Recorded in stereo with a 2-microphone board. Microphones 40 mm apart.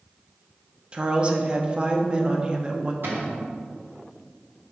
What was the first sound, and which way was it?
A woman speaking, 25° right (ahead or behind).